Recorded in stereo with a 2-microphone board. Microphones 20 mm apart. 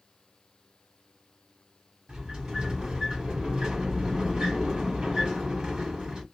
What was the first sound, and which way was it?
A sliding door, 40° right (ahead or behind).